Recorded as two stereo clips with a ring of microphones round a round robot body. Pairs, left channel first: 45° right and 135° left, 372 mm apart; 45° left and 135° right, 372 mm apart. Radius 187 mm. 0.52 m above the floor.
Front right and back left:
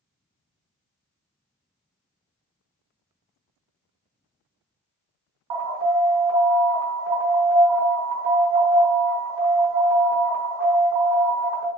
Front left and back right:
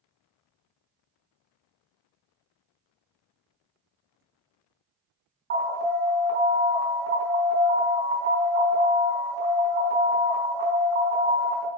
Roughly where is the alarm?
Behind.